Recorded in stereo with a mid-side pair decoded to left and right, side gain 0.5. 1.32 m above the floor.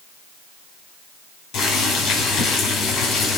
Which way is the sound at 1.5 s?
60° left.